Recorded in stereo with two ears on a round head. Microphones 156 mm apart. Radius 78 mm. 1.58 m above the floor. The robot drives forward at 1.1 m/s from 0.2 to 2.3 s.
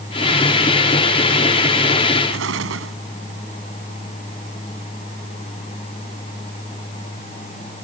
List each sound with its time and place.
2.3 s an explosion: 85° right